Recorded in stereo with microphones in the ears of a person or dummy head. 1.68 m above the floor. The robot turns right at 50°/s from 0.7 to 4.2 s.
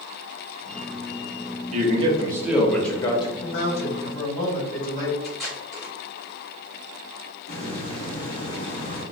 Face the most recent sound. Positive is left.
turn(degrees=35)  # may be behind; listen again after turning